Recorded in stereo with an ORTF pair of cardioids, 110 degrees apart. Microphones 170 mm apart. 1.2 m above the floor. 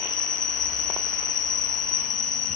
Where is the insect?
50° left, 5.5 m.